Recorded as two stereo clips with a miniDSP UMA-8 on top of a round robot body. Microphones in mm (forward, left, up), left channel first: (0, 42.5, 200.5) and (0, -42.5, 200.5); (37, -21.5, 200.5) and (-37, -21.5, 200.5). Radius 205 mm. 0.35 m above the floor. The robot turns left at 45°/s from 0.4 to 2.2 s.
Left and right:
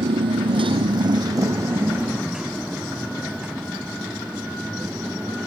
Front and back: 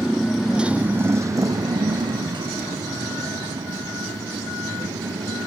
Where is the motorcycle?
95° right; by 5.5 s 170° right.